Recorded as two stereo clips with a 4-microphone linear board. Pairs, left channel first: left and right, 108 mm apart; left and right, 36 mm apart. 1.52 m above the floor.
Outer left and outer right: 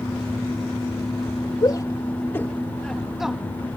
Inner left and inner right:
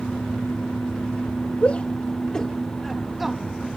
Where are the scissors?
No scissors in this recording.